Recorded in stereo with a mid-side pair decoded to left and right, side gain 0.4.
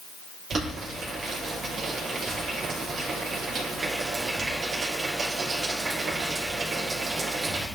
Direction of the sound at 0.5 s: 55° right.